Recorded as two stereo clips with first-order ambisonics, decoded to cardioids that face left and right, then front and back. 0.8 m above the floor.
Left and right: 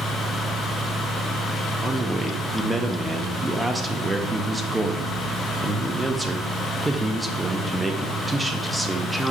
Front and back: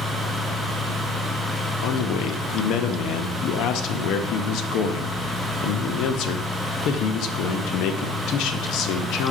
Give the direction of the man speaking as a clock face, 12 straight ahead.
12 o'clock.